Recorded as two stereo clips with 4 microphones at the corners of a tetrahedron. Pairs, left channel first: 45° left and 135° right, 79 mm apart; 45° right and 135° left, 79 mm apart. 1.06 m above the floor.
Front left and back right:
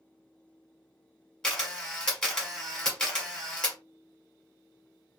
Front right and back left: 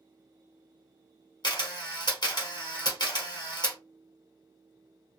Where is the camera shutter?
35° right, 1.2 m.